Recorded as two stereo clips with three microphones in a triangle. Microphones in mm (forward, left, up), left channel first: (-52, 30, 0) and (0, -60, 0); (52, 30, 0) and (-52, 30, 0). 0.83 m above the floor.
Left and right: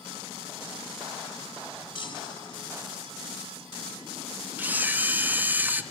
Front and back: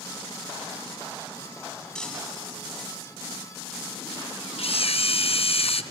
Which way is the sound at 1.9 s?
85° left.